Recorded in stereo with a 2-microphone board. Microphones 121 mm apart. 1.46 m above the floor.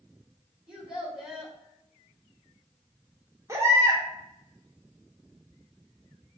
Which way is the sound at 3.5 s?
25° right (ahead or behind).